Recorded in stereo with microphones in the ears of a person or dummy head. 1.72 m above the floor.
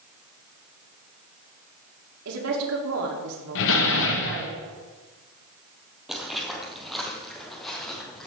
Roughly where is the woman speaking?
Right.